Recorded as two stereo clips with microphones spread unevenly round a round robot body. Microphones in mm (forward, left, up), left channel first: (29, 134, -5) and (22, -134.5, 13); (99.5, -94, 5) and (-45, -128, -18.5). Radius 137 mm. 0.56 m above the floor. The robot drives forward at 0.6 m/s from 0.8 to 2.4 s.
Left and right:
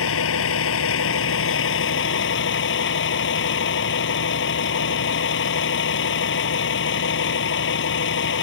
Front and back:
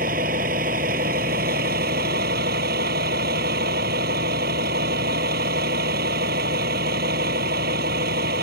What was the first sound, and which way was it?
A vehicle, 135° left.